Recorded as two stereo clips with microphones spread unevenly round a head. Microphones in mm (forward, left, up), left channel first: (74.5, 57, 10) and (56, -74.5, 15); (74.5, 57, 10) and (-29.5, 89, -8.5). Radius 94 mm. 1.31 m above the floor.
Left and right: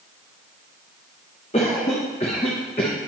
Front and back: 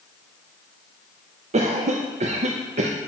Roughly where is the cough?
Behind left.